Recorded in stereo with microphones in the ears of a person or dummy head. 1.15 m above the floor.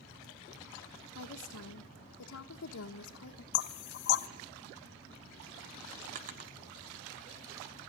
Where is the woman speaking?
75° left (ahead or behind), 1.0 m.